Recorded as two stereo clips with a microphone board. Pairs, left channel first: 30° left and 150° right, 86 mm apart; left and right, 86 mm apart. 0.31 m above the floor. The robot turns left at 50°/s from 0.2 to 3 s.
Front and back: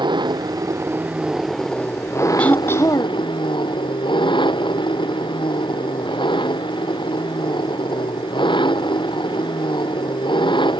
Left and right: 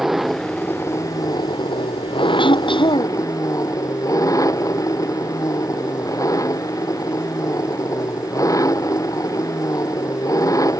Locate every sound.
0.0 s an engine running: 175° right; by 10.8 s 45° left
2.4 s throat clearing: 105° left; by 3.2 s 75° left